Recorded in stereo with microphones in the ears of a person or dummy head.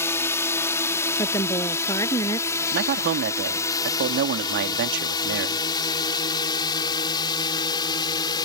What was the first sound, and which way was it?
A drone, 10° left (ahead or behind).